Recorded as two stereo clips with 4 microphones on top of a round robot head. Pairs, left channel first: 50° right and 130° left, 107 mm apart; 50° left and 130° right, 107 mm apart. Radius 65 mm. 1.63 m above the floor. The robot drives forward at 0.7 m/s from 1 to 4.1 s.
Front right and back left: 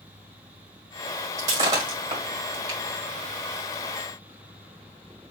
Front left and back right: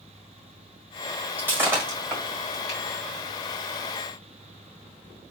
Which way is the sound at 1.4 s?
165° left.